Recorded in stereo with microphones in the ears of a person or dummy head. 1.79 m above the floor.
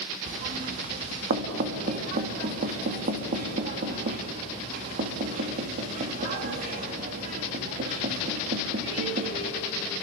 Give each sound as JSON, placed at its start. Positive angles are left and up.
{"t": 0.3, "sound": "knocking", "side_deg": -40, "distance_m": 2.0}